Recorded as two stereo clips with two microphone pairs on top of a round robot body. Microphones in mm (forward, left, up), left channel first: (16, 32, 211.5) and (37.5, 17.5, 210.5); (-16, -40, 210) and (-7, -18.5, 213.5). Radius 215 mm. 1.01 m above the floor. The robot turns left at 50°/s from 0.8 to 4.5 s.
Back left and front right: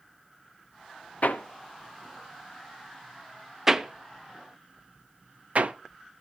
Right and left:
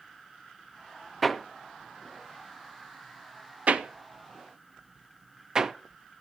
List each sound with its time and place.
1.2 s hammering: 165° left, 0.9 m; by 5.7 s straight ahead, 0.9 m